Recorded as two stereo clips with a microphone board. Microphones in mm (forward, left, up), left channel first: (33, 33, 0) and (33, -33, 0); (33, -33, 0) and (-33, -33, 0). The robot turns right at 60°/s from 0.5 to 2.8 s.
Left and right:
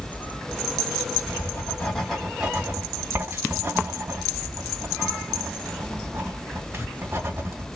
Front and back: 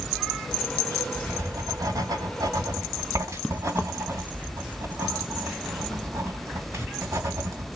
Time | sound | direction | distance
1.3 | writing | 125° left | 2.5 m